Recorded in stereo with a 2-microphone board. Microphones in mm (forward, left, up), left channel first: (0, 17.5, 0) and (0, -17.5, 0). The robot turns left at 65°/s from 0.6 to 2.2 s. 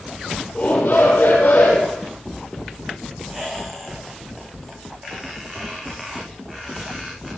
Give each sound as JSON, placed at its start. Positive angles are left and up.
{"t": 0.6, "sound": "a shout", "azimuth_deg": 125, "distance_m": 5.5}
{"t": 3.3, "sound": "a squeak", "side_deg": -15, "distance_m": 6.5}